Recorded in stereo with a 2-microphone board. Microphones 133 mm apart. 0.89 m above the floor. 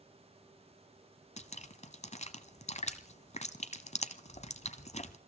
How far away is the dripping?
About 1.1 m.